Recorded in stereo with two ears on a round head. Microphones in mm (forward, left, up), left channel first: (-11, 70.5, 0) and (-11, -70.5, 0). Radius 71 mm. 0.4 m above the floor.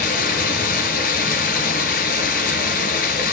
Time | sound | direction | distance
0.0 | running water | 55° left (ahead or behind) | 3 m